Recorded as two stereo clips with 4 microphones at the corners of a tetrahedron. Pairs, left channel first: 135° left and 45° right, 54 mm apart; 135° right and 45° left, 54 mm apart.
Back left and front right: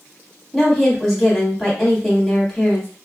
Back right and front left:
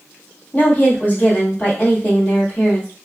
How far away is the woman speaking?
About 1.3 m.